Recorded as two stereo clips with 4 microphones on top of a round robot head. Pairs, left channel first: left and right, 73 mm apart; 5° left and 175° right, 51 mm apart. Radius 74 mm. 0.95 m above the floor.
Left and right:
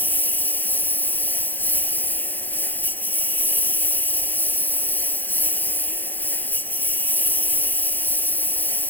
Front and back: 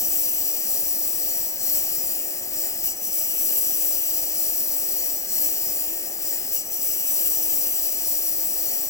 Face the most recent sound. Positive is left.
turn(degrees=25)